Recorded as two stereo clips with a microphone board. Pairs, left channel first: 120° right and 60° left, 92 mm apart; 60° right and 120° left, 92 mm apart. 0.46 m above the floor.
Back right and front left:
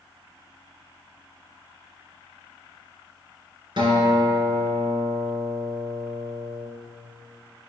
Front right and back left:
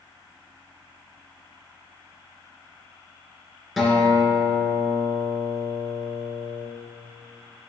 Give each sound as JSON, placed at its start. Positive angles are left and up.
{"t": 3.8, "sound": "a guitar", "azimuth_deg": 30, "distance_m": 2.0}